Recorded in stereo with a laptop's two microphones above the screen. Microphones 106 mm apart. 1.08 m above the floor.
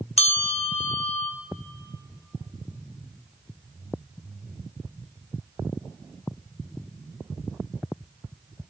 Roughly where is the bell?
Left.